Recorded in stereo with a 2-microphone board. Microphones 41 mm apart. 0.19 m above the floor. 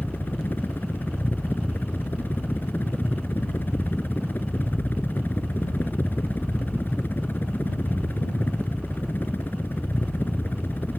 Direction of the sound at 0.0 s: 50° left (ahead or behind).